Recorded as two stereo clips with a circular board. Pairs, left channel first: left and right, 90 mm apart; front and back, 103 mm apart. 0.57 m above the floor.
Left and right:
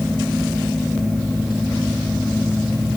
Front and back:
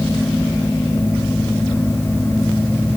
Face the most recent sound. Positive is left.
No sound to turn to.